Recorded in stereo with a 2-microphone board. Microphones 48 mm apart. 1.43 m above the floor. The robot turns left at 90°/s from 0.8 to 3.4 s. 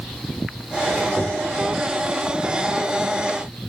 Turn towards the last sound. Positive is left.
turn(degrees=155)